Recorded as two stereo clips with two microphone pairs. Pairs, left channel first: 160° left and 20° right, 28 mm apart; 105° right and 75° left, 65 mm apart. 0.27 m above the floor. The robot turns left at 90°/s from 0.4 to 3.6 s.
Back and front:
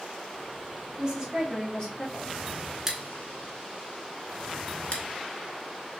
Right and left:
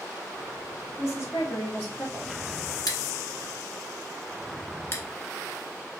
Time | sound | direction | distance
1.0 | a woman speaking | 75° right | 1.4 m
2.9 | scissors | 90° right | 0.7 m